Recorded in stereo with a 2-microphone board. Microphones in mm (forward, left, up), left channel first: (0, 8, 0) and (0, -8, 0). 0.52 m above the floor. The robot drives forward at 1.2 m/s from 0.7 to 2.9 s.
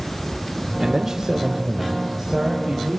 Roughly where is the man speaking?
Right.